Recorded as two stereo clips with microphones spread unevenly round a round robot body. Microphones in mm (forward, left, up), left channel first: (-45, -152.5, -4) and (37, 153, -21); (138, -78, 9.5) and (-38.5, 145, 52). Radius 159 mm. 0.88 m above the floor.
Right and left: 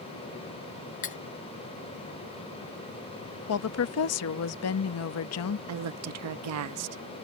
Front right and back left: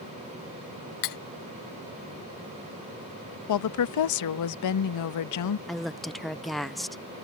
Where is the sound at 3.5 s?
60° right.